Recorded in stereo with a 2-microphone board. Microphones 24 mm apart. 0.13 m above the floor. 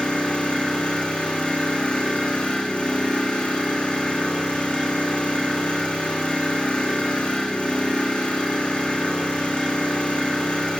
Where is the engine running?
60° left (ahead or behind), 7.5 m.